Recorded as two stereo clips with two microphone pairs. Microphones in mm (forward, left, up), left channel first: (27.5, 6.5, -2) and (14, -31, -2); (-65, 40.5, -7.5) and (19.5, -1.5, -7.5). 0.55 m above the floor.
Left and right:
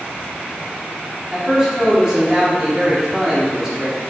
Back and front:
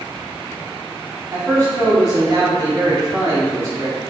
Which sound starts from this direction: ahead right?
A man speaking, at 1.3 s.